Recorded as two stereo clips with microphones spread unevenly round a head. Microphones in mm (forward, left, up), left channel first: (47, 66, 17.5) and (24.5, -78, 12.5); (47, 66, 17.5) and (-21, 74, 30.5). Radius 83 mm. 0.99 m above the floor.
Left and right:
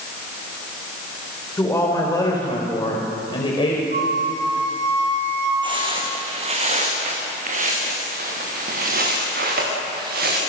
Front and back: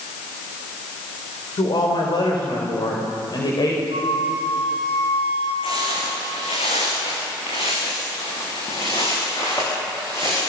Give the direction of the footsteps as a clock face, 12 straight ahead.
1 o'clock.